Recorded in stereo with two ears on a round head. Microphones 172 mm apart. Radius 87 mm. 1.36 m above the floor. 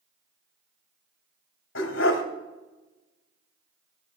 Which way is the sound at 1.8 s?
70° left (ahead or behind).